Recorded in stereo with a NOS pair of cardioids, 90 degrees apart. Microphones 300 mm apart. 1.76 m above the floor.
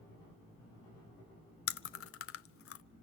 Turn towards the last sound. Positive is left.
turn(degrees=50)